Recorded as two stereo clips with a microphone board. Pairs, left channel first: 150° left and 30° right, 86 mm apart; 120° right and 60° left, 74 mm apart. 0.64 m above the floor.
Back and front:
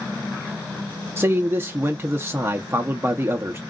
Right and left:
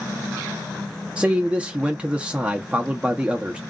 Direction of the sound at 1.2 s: Straight ahead.